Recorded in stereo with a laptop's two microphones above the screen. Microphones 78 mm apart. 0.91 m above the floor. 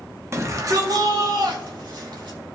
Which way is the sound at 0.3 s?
35° right (ahead or behind).